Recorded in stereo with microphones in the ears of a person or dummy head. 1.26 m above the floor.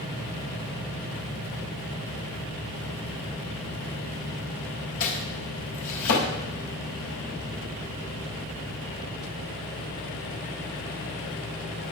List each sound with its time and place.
5.0 s chopping: 75° left (ahead or behind), 5.5 m